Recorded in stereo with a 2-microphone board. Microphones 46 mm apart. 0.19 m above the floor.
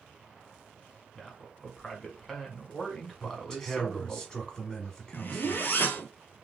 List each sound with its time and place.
1.1 s a man speaking: 5° left (ahead or behind), 1.4 m
3.2 s a man speaking: 15° left (ahead or behind), 1.3 m
5.1 s a zipper: 50° left (ahead or behind), 0.8 m